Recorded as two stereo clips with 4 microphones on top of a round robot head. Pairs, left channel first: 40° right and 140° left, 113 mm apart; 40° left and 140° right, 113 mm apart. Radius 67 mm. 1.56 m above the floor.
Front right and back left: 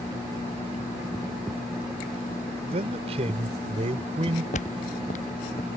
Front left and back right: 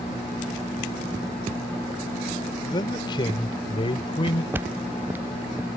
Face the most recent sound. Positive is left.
turn(degrees=-60)